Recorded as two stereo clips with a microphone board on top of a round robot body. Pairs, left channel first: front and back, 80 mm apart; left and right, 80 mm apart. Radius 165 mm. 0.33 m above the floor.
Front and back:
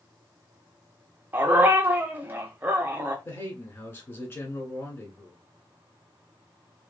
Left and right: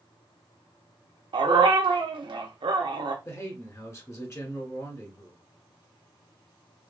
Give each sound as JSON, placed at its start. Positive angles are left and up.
{"t": 1.3, "sound": "a dog barking", "azimuth_deg": -110, "distance_m": 0.6}
{"t": 3.2, "sound": "a man speaking", "azimuth_deg": 50, "distance_m": 1.7}